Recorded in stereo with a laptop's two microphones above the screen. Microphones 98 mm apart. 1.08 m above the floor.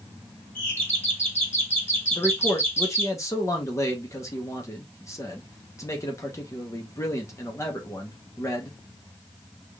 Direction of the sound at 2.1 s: 30° left (ahead or behind).